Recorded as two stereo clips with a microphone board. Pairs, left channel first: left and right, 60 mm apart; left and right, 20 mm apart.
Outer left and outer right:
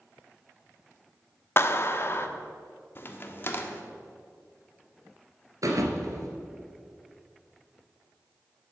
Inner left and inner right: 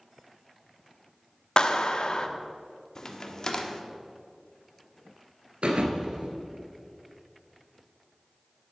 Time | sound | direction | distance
1.6 | a clap | 40° left (ahead or behind) | 0.8 m
3.0 | a crack | 35° left (ahead or behind) | 1.1 m
5.6 | a thud | 70° right (ahead or behind) | 1.8 m